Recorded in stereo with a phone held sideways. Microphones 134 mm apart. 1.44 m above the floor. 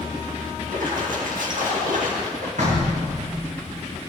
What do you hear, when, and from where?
0.7 s a splash: 80° right, 2 m
2.6 s knocking: 70° right (ahead or behind), 5.5 m